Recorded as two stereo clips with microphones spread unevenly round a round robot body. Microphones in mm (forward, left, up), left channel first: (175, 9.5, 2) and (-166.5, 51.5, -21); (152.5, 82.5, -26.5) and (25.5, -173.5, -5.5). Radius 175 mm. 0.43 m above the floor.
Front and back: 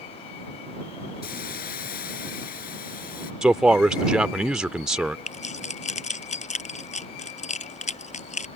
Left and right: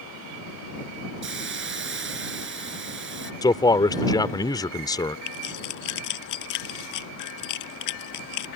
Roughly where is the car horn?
I don't hear a car horn.